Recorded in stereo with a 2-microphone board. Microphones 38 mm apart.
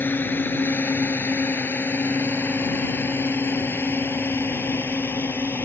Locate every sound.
0.0 s a drone: 60° left (ahead or behind); by 5.7 s 75° left (ahead or behind)